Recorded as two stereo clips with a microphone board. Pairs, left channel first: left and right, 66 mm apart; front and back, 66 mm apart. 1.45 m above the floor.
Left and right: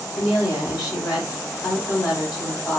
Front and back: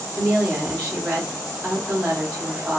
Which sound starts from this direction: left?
A woman speaking, at 0.1 s.